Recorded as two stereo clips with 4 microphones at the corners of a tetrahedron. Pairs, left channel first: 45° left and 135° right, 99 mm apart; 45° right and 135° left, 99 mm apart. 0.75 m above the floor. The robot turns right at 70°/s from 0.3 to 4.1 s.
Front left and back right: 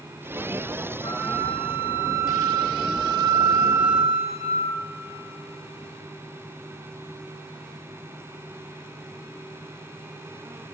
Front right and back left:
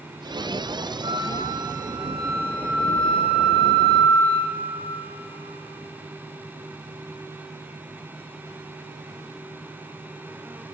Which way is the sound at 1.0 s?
90° left.